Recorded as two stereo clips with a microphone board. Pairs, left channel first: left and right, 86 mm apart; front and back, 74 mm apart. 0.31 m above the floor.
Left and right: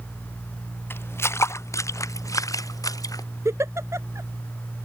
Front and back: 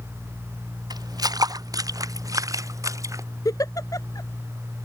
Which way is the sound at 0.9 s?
155° left.